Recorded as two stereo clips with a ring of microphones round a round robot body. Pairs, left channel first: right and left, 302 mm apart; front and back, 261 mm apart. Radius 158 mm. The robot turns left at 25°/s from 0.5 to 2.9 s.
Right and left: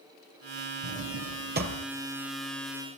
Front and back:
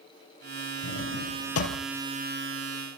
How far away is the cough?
I don't hear a cough.